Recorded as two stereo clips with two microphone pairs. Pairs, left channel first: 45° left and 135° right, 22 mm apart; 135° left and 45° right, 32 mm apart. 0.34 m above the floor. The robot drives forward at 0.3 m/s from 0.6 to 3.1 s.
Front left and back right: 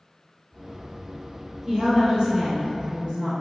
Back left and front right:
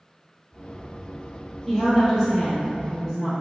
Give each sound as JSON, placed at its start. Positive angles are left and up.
{"t": 1.7, "sound": "a woman speaking", "azimuth_deg": -140, "distance_m": 1.1}